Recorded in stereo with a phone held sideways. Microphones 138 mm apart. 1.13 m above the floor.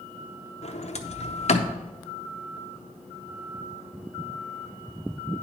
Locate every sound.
0.6 s a sliding door: 55° left (ahead or behind), 0.7 m